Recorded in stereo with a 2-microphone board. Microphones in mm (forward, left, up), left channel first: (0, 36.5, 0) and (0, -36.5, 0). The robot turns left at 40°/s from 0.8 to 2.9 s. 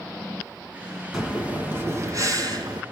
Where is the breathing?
5° right, 3 m; by 2.8 s 75° right, 3 m.